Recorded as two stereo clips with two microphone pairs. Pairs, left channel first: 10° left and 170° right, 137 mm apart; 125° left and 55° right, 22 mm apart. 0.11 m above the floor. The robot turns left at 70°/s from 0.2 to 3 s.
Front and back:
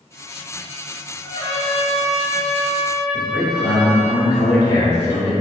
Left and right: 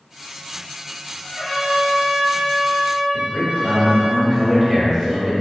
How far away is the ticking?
No ticking in this recording.